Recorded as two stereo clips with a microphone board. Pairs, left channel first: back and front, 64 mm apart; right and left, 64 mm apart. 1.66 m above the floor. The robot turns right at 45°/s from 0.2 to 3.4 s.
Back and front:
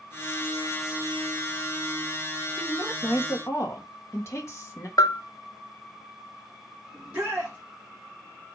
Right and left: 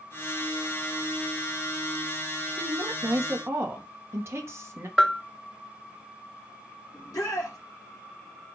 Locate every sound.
2.6 s a woman speaking: 100° left, 1.8 m; by 4.9 s 135° left, 1.8 m
5.0 s a bell: 175° right, 0.6 m
6.9 s a shout: 70° right, 3 m